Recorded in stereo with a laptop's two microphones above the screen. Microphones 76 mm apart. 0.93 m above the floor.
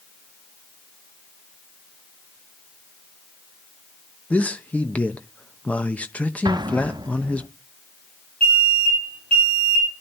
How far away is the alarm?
About 6 m.